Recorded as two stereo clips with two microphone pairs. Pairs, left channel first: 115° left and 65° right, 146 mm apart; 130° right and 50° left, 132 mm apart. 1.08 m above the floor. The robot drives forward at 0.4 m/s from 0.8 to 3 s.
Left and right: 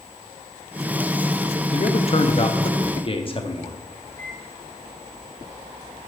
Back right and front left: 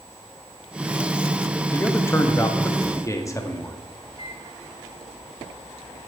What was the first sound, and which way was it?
A man speaking, 160° left.